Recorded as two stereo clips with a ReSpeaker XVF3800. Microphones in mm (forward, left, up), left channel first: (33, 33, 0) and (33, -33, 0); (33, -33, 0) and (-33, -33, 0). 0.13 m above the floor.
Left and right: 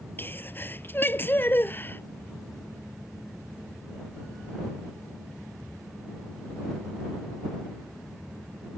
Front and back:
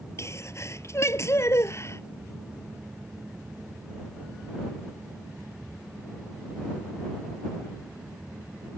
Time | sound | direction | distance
0.2 | a sneeze | 40° left | ?